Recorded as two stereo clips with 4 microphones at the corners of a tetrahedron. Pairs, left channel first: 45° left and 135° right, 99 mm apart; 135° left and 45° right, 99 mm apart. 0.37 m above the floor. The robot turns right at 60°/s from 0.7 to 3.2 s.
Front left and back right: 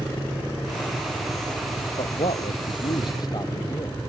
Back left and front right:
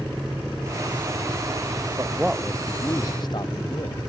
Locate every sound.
2.0 s a man speaking: 20° left; by 4.0 s 90° left